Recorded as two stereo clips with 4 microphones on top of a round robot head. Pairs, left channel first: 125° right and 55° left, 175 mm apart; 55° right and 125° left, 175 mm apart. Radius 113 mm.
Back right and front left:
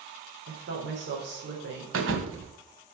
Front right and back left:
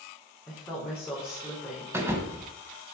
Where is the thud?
45° left, 1.6 m.